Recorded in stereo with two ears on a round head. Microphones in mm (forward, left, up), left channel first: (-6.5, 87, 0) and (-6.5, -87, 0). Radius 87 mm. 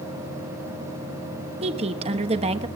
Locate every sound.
1.6 s a woman speaking: 30° right (ahead or behind), 1.1 m